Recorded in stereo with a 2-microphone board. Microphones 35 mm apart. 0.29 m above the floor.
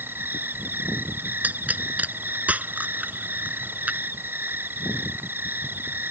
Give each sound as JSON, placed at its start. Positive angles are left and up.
{"t": 0.0, "sound": "an insect", "side_deg": -80}
{"t": 1.4, "sound": "a pop", "side_deg": -50}